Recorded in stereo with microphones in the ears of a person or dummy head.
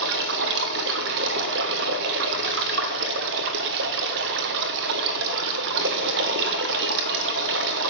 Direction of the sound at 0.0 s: 50° right (ahead or behind).